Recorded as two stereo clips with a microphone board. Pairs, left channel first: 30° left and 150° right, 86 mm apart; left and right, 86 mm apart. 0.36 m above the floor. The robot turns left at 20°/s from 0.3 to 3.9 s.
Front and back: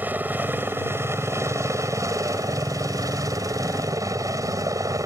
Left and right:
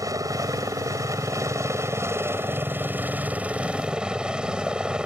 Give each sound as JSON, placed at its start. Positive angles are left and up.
{"t": 0.0, "sound": "a helicopter", "azimuth_deg": -90}